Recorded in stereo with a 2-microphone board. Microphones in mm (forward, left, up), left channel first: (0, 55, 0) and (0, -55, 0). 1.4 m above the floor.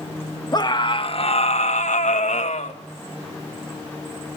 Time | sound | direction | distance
0.5 | a scream | 35° left (ahead or behind) | 2 m